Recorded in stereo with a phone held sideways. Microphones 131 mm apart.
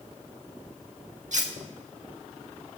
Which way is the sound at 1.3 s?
65° right (ahead or behind).